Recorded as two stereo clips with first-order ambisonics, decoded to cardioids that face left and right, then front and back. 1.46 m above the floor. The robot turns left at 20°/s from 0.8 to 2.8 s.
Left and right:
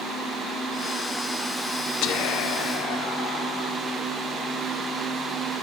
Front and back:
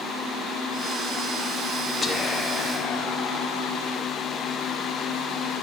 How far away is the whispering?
About 0.6 m.